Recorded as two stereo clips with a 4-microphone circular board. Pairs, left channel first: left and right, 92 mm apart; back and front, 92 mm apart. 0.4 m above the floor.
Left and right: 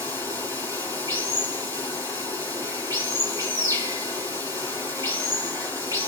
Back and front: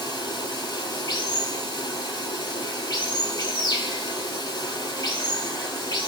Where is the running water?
140° right, 4 m.